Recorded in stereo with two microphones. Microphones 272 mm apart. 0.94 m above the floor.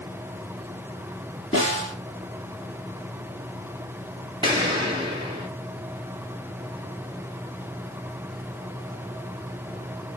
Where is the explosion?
15° right (ahead or behind), 1.4 m.